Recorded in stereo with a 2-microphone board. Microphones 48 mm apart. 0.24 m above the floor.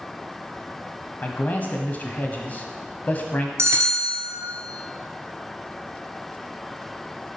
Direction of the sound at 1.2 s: 35° left (ahead or behind).